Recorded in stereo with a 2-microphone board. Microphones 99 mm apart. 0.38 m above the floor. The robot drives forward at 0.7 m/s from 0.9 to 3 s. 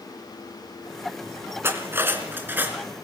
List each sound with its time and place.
1.6 s cutlery clinking: 25° right (ahead or behind), 2.5 m; by 2.8 s 20° right (ahead or behind), 3 m